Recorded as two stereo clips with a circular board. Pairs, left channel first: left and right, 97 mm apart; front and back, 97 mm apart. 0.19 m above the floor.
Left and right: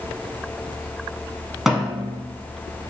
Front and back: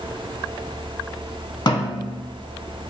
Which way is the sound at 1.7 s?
5° right.